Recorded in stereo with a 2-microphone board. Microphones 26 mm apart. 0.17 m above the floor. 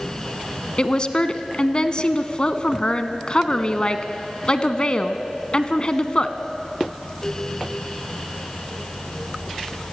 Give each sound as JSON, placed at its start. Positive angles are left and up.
{"t": 0.8, "sound": "a woman speaking", "side_deg": 35, "distance_m": 1.4}